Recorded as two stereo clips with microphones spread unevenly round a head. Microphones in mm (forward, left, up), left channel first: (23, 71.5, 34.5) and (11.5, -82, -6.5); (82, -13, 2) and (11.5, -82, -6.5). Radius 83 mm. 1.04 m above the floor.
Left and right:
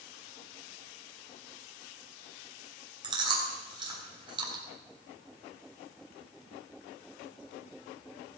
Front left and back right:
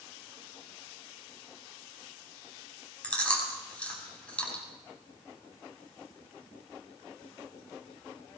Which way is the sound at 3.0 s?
30° right.